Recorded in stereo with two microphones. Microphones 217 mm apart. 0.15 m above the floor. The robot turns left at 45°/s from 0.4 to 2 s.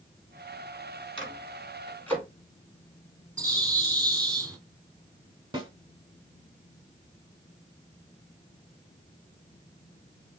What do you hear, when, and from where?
1.2 s a microwave: 25° left (ahead or behind), 1.5 m; by 2.2 s 10° left (ahead or behind), 1.5 m
3.4 s a bird: 15° right (ahead or behind), 0.9 m
5.5 s a snare drum: 20° right (ahead or behind), 0.7 m